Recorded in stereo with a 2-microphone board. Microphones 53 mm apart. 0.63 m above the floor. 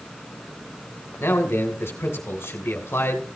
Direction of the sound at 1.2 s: 50° left (ahead or behind).